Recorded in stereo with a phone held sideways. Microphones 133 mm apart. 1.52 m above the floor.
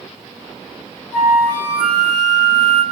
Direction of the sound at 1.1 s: 65° left (ahead or behind).